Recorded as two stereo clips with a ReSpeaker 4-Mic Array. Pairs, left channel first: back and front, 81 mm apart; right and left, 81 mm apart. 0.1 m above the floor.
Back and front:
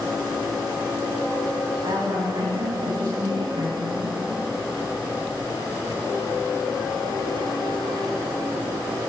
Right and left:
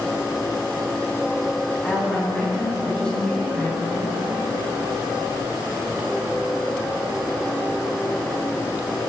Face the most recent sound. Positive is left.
turn(degrees=-10)